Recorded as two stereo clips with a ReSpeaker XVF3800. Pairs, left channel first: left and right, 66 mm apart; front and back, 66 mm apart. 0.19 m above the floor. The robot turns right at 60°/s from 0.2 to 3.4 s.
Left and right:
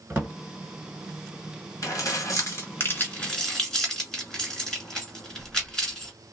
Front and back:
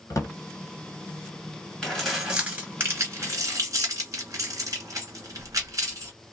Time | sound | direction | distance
0.1 | a drawer | 30° right | 1.5 m
1.8 | keys jangling | 75° left | 1.7 m